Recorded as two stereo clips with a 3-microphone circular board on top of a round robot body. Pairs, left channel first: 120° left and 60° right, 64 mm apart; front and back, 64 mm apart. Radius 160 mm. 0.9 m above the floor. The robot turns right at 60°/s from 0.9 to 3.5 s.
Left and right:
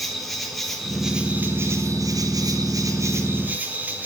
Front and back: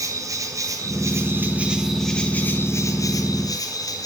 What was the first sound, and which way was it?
An insect, 150° right.